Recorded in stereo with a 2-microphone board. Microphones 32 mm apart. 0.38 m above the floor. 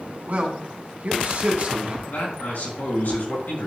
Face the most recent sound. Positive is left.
turn(degrees=70)  # may be behind; listen again after turning